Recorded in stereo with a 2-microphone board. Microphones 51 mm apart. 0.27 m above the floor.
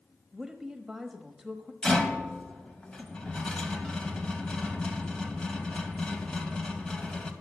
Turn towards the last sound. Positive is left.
turn(degrees=15)  # may be behind; listen again after turning